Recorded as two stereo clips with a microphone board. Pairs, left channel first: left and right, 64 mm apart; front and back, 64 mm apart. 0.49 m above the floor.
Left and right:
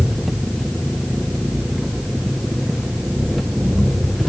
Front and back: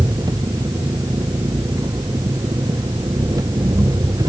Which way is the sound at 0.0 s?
Straight behind.